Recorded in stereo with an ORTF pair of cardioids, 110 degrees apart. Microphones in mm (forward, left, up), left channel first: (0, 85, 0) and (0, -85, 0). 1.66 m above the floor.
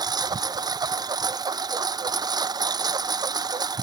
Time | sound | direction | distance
0.0 | a lawn mower | 25° right | ?